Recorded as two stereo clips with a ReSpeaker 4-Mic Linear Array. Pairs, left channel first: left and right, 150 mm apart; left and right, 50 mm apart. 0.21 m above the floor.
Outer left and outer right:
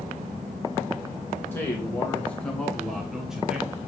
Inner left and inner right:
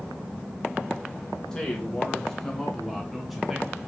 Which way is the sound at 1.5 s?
15° left (ahead or behind).